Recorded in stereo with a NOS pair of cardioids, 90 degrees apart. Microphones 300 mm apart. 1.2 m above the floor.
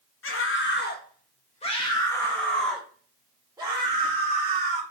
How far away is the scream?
About 2 m.